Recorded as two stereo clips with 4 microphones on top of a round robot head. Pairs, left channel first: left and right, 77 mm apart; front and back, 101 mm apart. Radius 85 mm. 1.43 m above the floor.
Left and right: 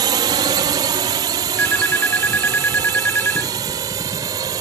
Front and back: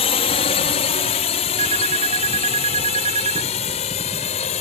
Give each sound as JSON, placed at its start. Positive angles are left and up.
{"t": 0.0, "sound": "a drone", "azimuth_deg": -40}
{"t": 1.6, "sound": "a phone ringing", "azimuth_deg": 160}